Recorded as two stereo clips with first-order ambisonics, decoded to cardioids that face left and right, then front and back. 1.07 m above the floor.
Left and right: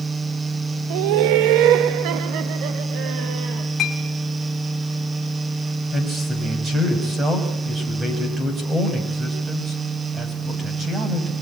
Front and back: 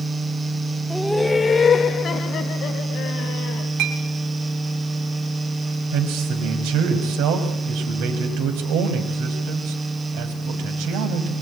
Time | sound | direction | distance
0.9 | laughter | 95° right | 0.8 m
3.8 | a clink | 155° left | 5 m
5.9 | a man speaking | 160° right | 6 m